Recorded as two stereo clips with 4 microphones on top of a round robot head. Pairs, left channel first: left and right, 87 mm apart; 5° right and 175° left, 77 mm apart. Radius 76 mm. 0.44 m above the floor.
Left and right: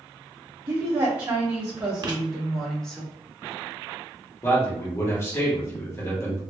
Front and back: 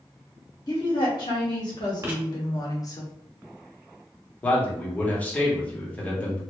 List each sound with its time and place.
0.7 s a woman speaking: 25° right, 2.0 m; by 3.0 s 15° left, 1.1 m
2.0 s writing: 125° right, 0.9 m
4.4 s a man speaking: 55° left, 1.6 m